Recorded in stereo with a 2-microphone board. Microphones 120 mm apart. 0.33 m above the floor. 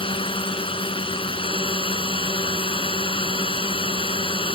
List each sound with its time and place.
0.0 s a drone: 45° left (ahead or behind)